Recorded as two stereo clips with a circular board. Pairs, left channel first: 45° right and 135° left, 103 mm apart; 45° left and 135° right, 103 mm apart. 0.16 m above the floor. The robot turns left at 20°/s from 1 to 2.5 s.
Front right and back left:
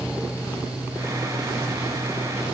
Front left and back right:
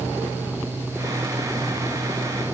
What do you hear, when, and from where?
Only background noise.